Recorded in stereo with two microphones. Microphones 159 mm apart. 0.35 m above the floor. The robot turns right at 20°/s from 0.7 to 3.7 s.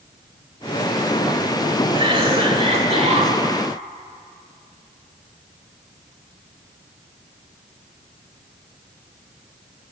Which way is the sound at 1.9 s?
35° right (ahead or behind).